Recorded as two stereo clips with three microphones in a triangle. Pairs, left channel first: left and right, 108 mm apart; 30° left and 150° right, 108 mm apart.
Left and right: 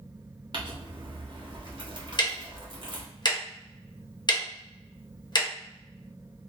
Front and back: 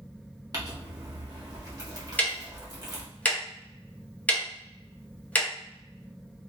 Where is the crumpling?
110° right, 0.9 m.